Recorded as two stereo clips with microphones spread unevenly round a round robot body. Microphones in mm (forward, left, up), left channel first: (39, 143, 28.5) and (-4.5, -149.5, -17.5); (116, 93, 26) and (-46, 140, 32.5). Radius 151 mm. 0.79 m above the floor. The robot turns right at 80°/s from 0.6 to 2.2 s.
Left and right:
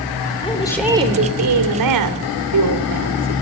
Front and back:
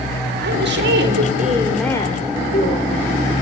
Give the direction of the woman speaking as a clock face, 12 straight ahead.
7 o'clock.